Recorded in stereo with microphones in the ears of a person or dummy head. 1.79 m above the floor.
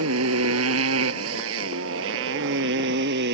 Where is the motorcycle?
85° right; by 3.4 s 65° right (ahead or behind).